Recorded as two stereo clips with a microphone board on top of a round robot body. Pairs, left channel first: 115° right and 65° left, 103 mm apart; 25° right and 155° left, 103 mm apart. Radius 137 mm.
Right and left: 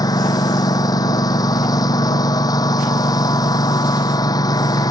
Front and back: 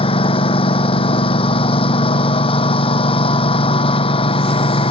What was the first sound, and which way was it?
A lawn mower, 55° right.